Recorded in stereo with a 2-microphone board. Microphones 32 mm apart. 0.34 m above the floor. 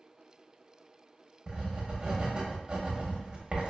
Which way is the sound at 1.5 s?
35° right (ahead or behind).